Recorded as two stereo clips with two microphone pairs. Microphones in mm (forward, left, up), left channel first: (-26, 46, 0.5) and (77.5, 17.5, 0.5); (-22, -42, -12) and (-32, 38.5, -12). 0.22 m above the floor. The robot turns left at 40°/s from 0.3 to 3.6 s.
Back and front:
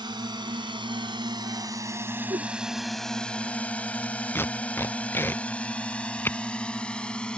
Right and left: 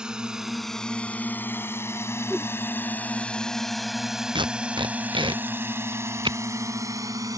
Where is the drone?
15° left; by 7.4 s 85° left.